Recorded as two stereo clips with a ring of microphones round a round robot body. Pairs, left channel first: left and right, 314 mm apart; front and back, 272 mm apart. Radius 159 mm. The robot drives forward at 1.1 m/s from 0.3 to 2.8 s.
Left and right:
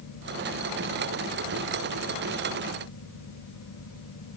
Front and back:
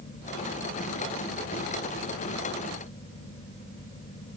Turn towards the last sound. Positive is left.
No sound to turn to.